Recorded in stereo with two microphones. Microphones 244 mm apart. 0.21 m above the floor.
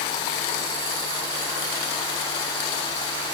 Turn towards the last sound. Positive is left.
No sound to turn to.